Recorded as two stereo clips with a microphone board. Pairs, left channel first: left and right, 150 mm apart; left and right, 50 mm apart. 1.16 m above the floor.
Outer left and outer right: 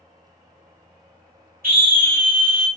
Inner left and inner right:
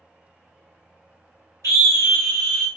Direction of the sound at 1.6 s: 75° right (ahead or behind).